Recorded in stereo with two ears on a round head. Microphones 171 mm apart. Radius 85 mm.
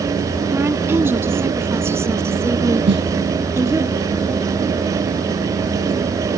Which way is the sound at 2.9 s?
65° right (ahead or behind).